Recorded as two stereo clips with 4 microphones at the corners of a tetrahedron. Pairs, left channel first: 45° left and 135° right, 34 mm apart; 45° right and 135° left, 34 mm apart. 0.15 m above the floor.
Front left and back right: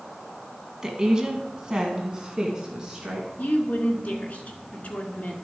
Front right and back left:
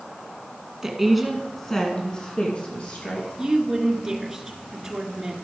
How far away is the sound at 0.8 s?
About 1.4 m.